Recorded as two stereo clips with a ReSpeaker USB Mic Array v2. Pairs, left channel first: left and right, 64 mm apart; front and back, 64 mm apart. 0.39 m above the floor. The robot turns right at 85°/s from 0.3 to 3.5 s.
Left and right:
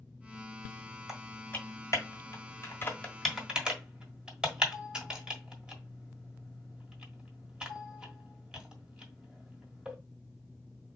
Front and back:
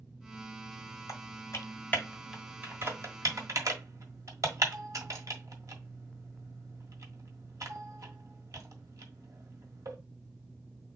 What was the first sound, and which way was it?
Typing on a keyboard, 10° right.